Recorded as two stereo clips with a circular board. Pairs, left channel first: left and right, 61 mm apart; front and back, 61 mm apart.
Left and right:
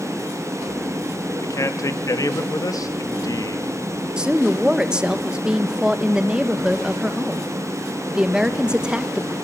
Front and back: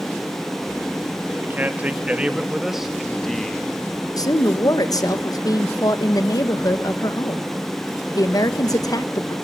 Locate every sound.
1.4 s a man speaking: 120° left, 2 m; by 3.7 s 75° left, 1.9 m
4.2 s a woman speaking: 15° right, 1.5 m